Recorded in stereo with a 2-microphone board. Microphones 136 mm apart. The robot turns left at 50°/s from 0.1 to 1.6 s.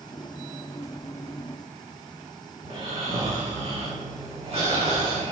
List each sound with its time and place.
2.6 s snoring: 45° right (ahead or behind), 8.5 m